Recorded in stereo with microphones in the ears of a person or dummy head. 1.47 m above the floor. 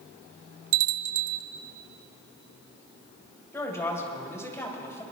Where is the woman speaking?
20° left (ahead or behind), 2.5 m.